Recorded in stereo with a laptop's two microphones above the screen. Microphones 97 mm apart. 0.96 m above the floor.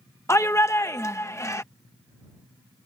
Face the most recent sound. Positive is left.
turn(degrees=30)  # may be behind; listen again after turning